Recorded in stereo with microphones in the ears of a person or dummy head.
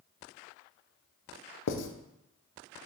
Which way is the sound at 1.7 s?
75° left (ahead or behind).